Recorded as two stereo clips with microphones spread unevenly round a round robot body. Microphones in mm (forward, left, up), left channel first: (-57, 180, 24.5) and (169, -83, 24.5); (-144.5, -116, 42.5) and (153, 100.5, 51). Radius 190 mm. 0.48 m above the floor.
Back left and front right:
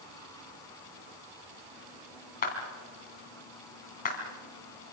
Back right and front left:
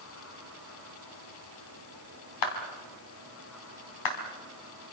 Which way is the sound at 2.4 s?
160° right.